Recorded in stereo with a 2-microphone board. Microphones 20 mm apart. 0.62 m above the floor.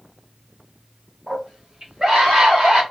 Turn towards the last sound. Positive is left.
turn(degrees=-75)  # may be behind; listen again after turning